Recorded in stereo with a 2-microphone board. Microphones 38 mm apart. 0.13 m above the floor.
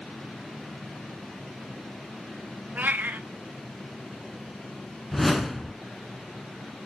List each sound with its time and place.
2.8 s a cat meowing: 50° right (ahead or behind), 0.7 m
5.1 s a whoosh: 5° left (ahead or behind), 1.2 m